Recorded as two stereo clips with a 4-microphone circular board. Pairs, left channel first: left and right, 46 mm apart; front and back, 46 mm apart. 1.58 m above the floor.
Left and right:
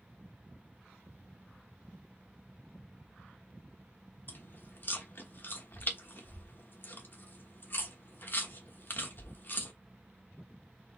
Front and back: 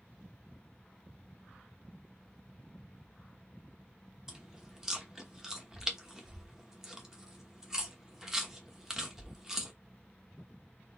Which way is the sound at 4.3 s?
105° left.